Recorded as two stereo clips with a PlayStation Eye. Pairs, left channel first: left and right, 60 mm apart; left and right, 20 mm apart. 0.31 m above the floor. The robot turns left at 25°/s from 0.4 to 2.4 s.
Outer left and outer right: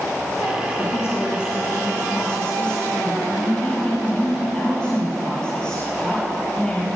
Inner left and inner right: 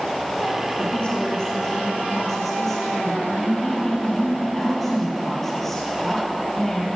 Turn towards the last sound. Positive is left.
turn(degrees=15)